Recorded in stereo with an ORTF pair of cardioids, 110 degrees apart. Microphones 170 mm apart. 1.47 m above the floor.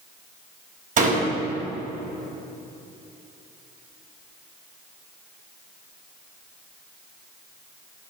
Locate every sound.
1.0 s a door slam: 50° right, 5.5 m